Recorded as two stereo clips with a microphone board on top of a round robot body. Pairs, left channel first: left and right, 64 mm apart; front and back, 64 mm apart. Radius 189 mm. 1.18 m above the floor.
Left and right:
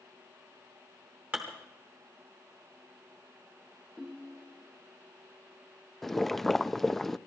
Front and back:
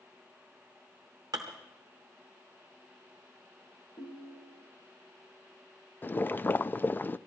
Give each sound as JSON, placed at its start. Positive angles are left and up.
{"t": 1.3, "sound": "dishes clattering", "azimuth_deg": -155, "distance_m": 0.6}
{"t": 4.0, "sound": "a ringtone", "azimuth_deg": -5, "distance_m": 0.5}
{"t": 6.0, "sound": "boiling", "azimuth_deg": 10, "distance_m": 0.6}